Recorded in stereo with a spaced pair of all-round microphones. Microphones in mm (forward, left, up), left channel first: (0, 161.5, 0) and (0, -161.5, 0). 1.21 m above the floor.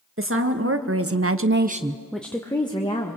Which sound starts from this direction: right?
A woman speaking, at 0.2 s.